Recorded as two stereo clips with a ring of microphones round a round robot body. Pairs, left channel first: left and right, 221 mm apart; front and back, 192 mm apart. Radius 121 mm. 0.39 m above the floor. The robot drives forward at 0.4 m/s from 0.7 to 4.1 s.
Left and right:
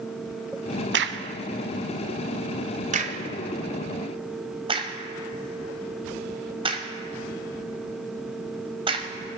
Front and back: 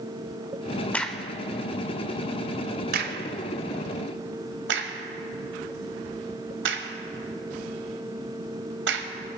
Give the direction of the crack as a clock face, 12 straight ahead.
3 o'clock.